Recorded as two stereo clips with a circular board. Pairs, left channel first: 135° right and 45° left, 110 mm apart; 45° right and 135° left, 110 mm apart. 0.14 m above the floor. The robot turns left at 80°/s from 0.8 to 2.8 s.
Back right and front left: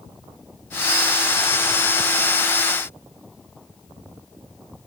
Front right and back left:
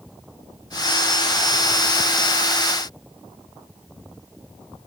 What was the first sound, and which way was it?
Only background noise.